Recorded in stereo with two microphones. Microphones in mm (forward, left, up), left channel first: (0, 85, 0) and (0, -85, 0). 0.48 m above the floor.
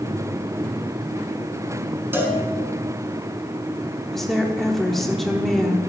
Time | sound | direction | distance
2.1 | a cowbell | 15° right (ahead or behind) | 1.5 m
4.1 | a woman speaking | centre (ahead or behind) | 0.9 m